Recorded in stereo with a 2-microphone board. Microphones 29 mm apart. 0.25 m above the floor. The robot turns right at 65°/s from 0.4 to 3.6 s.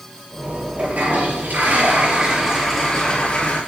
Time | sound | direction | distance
0.8 | a toilet flushing | 125° right | 5.5 m